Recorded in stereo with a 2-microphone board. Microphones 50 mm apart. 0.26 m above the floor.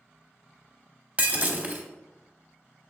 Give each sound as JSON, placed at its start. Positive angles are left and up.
{"t": 1.2, "sound": "breaking glass", "side_deg": -30, "distance_m": 0.9}